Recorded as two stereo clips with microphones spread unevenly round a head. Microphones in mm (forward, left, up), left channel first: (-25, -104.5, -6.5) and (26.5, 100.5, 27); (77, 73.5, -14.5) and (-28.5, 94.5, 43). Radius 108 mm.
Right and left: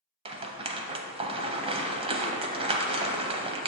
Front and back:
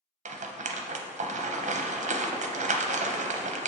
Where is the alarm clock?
I don't hear an alarm clock.